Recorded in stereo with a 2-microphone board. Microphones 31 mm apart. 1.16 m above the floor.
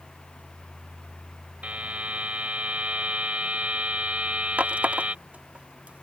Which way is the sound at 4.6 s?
65° right (ahead or behind).